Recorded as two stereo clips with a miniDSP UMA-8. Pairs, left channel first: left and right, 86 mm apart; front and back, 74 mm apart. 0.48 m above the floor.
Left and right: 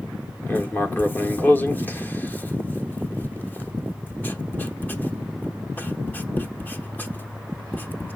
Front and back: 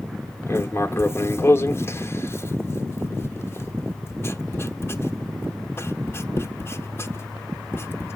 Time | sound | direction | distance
0.5 | writing | 35° left | 0.8 m